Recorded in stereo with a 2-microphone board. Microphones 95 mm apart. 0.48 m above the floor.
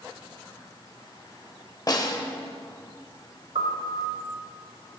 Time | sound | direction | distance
1.9 | a snare drum | 40° left (ahead or behind) | 0.6 m
3.5 | a piano | 75° right (ahead or behind) | 0.9 m